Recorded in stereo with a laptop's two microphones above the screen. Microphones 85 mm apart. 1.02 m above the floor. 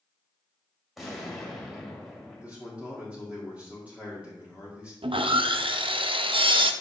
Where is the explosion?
Centre (ahead or behind), 2 m.